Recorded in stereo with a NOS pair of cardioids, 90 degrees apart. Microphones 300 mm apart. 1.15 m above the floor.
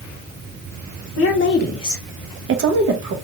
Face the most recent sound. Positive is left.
turn(degrees=-75)